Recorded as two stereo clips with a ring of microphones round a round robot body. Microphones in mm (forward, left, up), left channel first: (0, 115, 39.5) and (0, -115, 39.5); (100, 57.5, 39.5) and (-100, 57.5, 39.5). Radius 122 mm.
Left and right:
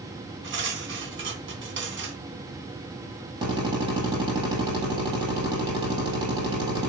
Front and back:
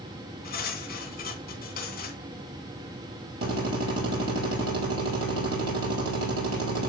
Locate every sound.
0.4 s cutlery clinking: 50° right, 2.5 m
3.4 s a drill: 165° right, 5.5 m